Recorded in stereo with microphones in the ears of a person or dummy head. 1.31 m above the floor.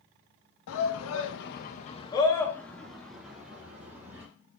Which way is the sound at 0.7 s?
80° left.